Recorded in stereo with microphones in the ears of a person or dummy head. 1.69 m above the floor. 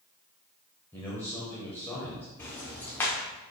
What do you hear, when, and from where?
0.9 s a man speaking: 15° left (ahead or behind), 0.9 m
2.4 s ticking: 10° left (ahead or behind), 0.7 m